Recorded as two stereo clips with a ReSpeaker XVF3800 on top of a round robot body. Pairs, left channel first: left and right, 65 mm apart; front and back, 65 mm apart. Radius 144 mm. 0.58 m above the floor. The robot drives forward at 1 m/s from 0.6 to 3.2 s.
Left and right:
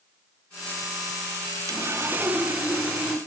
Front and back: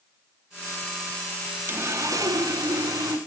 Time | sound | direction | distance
1.7 | sawing | 125° right | 0.6 m